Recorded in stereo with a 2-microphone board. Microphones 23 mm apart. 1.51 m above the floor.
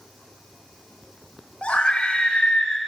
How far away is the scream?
About 6 m.